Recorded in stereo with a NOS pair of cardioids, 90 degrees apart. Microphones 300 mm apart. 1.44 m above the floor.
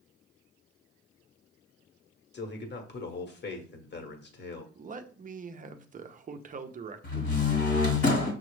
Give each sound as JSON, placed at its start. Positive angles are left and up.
{"t": 2.3, "sound": "a man speaking", "azimuth_deg": 35, "distance_m": 1.1}
{"t": 4.8, "sound": "a man speaking", "azimuth_deg": -25, "distance_m": 0.6}
{"t": 7.0, "sound": "a door slam", "azimuth_deg": 40, "distance_m": 1.4}